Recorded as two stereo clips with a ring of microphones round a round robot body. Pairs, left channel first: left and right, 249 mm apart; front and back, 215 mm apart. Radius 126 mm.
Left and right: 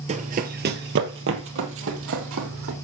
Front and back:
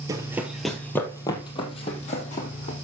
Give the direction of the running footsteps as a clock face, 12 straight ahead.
4 o'clock.